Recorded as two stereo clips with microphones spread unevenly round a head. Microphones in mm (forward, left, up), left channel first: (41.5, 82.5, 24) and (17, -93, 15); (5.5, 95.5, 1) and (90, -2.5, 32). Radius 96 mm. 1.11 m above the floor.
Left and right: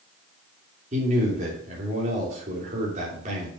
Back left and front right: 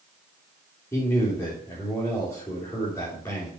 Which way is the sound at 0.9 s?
150° right.